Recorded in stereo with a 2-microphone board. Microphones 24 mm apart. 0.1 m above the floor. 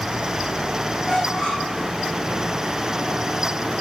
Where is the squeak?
45° left (ahead or behind), 3 m.